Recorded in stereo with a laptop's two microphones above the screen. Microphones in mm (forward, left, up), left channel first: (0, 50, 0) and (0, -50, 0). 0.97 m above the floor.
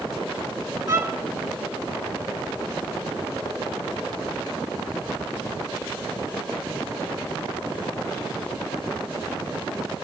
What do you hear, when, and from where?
0.9 s a violin: 30° right (ahead or behind), 5 m